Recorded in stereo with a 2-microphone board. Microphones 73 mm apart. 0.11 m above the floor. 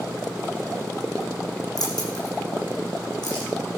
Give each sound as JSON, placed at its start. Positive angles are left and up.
{"t": 1.8, "sound": "keys jangling", "side_deg": 65, "distance_m": 4.5}